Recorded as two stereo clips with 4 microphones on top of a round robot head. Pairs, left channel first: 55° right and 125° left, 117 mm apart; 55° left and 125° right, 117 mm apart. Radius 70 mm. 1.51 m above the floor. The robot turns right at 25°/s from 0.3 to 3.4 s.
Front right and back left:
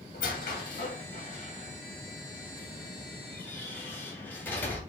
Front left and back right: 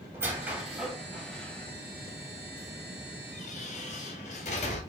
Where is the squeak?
55° right, 3 m; by 4.8 s 20° left, 3 m.